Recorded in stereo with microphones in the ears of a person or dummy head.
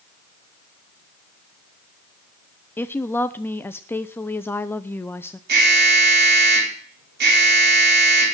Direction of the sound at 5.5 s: 55° right (ahead or behind).